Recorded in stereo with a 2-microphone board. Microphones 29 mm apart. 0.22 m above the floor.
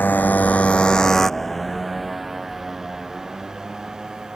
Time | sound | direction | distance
0.0 | a motorcycle | 85° left | ?